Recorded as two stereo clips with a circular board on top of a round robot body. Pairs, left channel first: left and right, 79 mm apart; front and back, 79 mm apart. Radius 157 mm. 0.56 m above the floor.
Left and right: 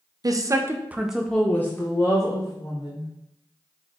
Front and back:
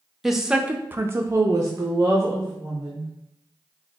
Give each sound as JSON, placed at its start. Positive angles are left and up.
{"t": 0.2, "sound": "a woman speaking", "azimuth_deg": -95, "distance_m": 0.7}